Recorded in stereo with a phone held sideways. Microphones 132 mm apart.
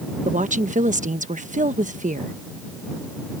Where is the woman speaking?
70° right (ahead or behind).